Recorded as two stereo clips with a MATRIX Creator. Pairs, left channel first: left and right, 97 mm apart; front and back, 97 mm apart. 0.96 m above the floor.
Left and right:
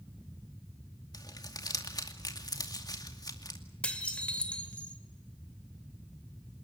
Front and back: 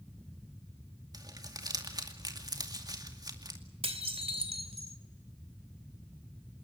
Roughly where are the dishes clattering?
Behind.